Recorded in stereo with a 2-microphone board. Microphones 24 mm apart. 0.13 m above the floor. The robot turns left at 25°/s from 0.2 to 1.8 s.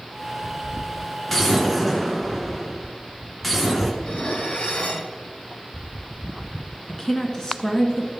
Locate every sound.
1.3 s an explosion: 10° left (ahead or behind), 1.6 m; by 3.9 s 5° left (ahead or behind), 1.6 m
4.0 s dishes clattering: 55° left (ahead or behind), 1.7 m
6.9 s a woman speaking: 25° left (ahead or behind), 1.6 m